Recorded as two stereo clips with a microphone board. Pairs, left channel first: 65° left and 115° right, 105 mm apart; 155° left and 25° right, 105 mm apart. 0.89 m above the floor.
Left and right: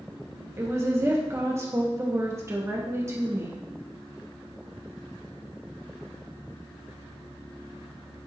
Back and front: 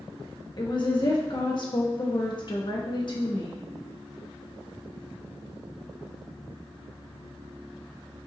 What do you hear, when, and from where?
0.6 s a woman speaking: 170° right, 1.5 m